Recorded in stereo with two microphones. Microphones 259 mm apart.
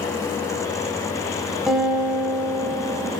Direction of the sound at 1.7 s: 5° right (ahead or behind).